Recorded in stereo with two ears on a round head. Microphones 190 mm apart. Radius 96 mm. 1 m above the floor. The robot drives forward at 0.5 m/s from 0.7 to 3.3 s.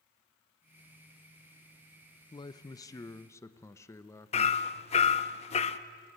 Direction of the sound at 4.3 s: 30° left (ahead or behind).